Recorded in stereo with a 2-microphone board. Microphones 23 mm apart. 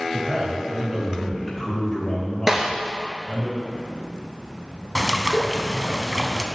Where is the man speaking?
40° right (ahead or behind), 2 m; by 3.5 s 55° left (ahead or behind), 3 m.